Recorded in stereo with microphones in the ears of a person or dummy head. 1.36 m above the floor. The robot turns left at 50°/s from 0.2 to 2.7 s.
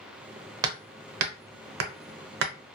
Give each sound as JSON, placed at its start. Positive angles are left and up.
{"t": 0.6, "sound": "hammering", "side_deg": -20, "distance_m": 0.7}